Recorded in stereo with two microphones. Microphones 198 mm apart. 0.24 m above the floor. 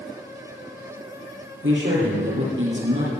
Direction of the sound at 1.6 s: 80° right.